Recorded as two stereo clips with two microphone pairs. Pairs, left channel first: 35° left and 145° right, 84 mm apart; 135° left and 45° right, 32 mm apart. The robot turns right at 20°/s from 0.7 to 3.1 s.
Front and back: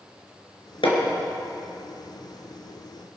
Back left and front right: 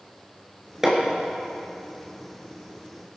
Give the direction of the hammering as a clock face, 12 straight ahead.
11 o'clock.